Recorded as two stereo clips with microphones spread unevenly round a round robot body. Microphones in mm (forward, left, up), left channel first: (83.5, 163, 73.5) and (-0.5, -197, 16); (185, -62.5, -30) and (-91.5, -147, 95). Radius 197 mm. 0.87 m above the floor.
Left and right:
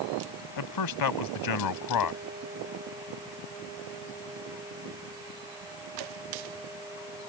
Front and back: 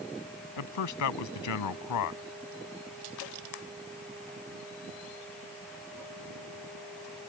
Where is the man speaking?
45° left.